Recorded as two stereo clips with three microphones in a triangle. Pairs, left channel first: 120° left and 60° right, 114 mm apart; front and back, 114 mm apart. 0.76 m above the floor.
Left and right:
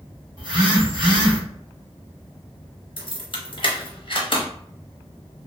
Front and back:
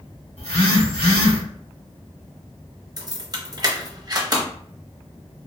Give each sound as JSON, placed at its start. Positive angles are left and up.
{"t": 0.4, "sound": "a phone buzzing", "azimuth_deg": -20, "distance_m": 1.0}
{"t": 3.0, "sound": "keys jangling", "azimuth_deg": 135, "distance_m": 0.7}